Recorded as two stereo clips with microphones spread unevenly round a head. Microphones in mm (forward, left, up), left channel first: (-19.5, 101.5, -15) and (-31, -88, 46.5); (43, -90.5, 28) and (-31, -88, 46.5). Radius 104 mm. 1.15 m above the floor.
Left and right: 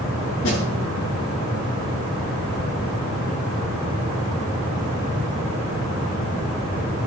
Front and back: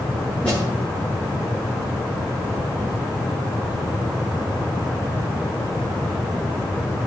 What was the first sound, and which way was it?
A snare drum, 80° left.